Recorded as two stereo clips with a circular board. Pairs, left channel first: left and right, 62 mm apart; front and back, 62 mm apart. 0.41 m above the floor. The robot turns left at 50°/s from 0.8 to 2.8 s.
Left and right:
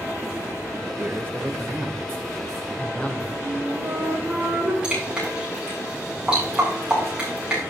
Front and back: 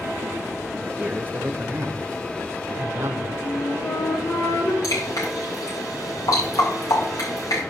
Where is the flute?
30° right, 4 m.